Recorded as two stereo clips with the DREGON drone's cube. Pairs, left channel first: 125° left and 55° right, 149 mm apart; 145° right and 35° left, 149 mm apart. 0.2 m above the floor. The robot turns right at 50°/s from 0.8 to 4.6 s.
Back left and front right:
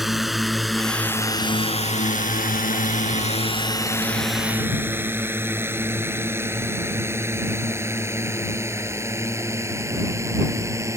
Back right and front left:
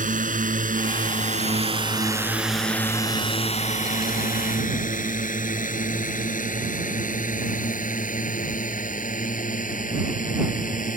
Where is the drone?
35° left; by 11.0 s 125° right.